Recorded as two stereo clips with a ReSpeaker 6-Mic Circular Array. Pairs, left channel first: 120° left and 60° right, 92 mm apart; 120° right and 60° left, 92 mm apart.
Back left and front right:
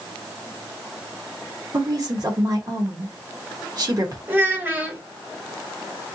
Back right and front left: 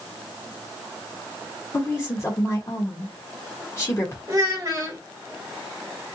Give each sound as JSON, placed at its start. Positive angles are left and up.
{"t": 1.7, "sound": "a woman speaking", "azimuth_deg": -75, "distance_m": 0.9}
{"t": 4.3, "sound": "a child speaking", "azimuth_deg": 10, "distance_m": 1.4}